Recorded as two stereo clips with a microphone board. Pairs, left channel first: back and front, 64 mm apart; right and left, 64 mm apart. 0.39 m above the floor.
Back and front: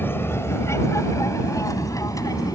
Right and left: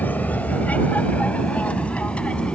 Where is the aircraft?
145° right; by 2.6 s 165° right.